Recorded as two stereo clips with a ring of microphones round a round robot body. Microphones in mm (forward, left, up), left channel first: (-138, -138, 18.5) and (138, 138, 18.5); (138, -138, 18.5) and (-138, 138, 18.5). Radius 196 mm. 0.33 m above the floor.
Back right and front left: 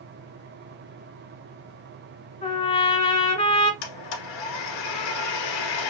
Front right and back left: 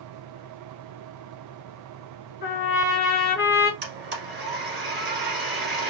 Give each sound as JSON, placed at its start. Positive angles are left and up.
{"t": 2.4, "sound": "a trumpet", "azimuth_deg": -75, "distance_m": 1.3}
{"t": 3.8, "sound": "a blender", "azimuth_deg": -160, "distance_m": 1.6}